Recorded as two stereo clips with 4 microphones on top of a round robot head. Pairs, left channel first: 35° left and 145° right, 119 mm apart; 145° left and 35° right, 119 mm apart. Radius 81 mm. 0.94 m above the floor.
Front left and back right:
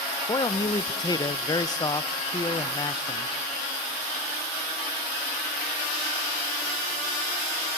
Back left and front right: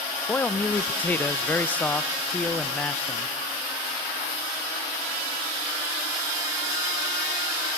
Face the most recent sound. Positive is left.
turn(degrees=75)